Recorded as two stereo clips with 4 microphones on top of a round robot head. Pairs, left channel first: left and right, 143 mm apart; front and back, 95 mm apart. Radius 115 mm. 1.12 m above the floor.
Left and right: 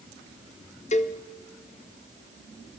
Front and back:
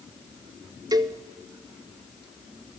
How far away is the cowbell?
About 1.5 m.